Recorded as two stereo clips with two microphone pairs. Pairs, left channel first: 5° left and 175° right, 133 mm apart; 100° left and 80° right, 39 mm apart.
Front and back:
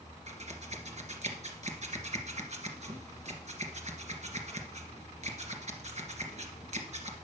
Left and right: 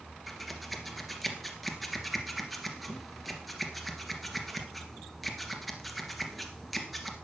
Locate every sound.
0.3 s scissors: 165° right, 2 m